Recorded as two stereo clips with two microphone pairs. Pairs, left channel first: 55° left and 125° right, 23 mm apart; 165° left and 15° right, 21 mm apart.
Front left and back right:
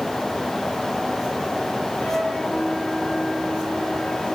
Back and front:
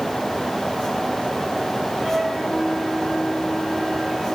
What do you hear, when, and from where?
2.0 s a flute: 35° left, 8.5 m